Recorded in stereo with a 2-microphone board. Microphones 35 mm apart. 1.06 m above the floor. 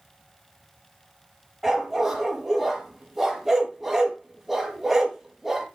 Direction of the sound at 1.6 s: 5° right (ahead or behind).